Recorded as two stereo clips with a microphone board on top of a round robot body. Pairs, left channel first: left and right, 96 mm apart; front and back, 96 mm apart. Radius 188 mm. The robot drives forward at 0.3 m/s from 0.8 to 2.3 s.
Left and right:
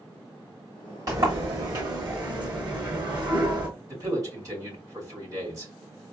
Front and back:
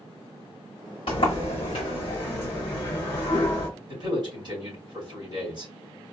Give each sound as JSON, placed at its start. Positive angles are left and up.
{"t": 1.1, "sound": "a sliding door", "azimuth_deg": -35, "distance_m": 1.4}
{"t": 3.9, "sound": "a man speaking", "azimuth_deg": -145, "distance_m": 2.5}